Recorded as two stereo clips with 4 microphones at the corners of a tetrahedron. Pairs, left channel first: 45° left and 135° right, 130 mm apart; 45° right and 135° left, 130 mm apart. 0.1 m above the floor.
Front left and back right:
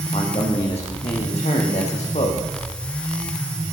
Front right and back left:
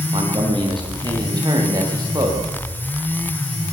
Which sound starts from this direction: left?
A man speaking, at 0.1 s.